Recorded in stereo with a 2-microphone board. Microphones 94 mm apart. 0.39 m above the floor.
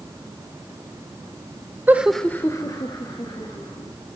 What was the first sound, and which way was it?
Laughter, 20° right (ahead or behind).